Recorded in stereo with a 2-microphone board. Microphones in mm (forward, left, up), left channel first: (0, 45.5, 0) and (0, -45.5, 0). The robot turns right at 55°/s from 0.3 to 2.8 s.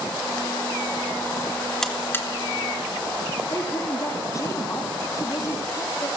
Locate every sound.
1.8 s a buzzer: 5° left (ahead or behind), 3 m; by 2.3 s 30° left (ahead or behind), 3 m
3.5 s a woman speaking: 35° left (ahead or behind), 3 m